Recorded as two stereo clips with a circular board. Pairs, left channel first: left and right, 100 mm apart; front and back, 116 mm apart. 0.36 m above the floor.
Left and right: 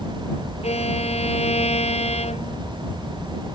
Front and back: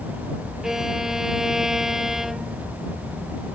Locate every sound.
0.6 s a violin: 95° left